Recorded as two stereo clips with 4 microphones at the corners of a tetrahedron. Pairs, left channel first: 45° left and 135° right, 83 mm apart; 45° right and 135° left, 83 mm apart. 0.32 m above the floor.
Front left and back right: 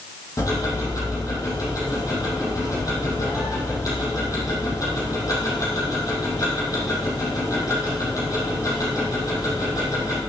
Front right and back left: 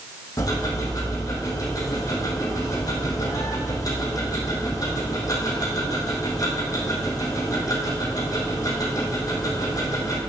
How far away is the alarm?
No alarm in this recording.